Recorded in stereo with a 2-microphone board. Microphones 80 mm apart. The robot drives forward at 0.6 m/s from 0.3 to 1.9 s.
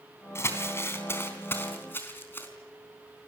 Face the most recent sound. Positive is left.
turn(degrees=30)  # may be behind; listen again after turning